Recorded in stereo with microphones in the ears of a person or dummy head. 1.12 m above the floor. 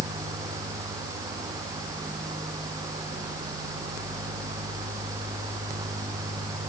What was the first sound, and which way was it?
Only background noise.